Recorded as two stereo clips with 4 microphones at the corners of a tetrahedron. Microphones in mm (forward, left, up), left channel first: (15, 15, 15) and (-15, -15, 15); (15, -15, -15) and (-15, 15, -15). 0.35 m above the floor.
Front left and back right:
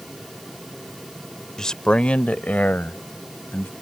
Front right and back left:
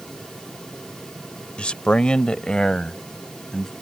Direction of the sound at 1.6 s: 15° right.